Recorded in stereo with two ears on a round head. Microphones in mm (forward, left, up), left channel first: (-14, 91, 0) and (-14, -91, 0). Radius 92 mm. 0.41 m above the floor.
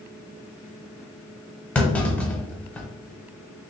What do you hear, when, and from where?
1.8 s a clunk: 5° left (ahead or behind), 0.5 m